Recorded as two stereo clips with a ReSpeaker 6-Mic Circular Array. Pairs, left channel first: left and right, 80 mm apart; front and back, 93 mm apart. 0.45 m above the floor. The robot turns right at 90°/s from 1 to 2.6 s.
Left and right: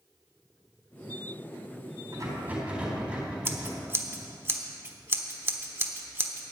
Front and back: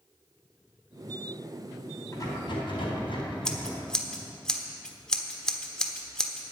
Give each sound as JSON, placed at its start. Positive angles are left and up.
{"t": 2.1, "sound": "a rattle", "azimuth_deg": -60, "distance_m": 4.0}
{"t": 3.5, "sound": "scissors", "azimuth_deg": -75, "distance_m": 1.1}